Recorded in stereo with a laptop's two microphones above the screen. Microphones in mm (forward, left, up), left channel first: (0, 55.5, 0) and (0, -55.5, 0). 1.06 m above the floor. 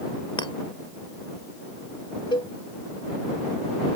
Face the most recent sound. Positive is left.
turn(degrees=45)  # may be behind; listen again after turning